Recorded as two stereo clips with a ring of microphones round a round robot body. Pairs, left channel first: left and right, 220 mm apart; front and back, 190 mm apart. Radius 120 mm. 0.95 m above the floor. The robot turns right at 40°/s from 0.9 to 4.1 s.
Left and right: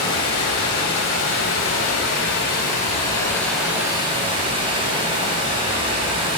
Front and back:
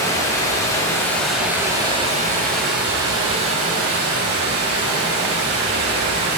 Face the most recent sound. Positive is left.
turn(degrees=-160)